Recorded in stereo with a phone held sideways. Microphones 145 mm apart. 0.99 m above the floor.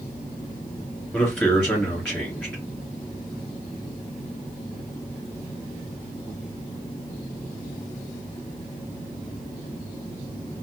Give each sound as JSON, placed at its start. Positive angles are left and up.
{"t": 1.1, "sound": "a man speaking", "side_deg": 5, "distance_m": 2.5}